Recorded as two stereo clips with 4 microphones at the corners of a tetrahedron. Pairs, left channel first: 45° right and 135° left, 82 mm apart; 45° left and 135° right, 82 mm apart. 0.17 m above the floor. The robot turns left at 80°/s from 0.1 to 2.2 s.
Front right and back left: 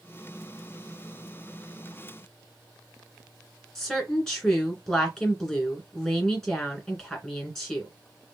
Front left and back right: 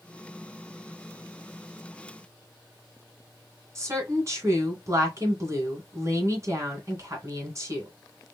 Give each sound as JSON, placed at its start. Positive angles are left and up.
{"t": 3.8, "sound": "a woman speaking", "azimuth_deg": -125, "distance_m": 2.0}